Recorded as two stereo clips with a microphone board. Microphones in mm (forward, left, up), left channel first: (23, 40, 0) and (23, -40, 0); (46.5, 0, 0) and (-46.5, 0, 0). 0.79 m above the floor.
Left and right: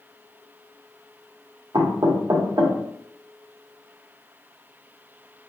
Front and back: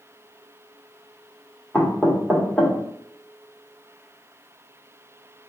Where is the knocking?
75° right, 1.2 m.